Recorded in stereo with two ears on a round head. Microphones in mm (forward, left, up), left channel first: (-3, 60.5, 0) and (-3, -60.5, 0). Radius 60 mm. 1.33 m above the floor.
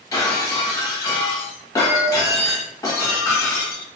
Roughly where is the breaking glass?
Left.